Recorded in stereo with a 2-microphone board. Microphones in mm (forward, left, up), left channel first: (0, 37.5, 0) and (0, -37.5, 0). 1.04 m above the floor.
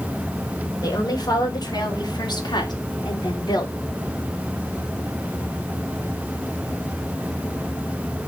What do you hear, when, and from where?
0.8 s a woman speaking: 60° left (ahead or behind), 4.5 m; by 3.8 s 70° left (ahead or behind), 2.5 m